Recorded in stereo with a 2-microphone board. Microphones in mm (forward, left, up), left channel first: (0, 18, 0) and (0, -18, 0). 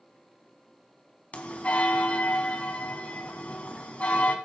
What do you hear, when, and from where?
1.3 s a bell: 40° left (ahead or behind), 1.0 m